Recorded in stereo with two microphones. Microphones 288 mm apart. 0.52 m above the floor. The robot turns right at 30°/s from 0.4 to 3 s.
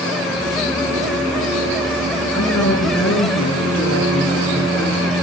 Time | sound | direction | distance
2.3 | a woman speaking | 75° left (ahead or behind) | 7.5 m